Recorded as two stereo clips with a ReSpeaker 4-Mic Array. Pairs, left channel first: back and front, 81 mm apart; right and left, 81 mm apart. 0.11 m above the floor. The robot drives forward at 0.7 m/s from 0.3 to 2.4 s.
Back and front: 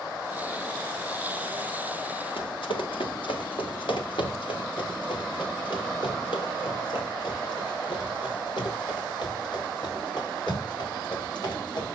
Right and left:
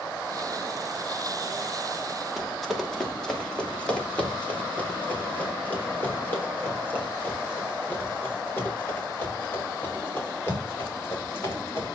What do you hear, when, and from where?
2.4 s running footsteps: straight behind, 2.5 m; by 11.8 s 145° right, 9.5 m